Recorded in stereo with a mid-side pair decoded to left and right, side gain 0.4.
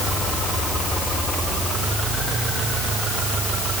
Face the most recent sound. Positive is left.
No sound to turn to.